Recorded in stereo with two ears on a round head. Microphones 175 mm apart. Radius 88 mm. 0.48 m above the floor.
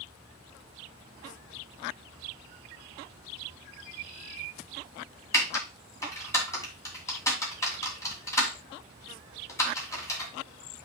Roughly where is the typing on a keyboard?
Centre.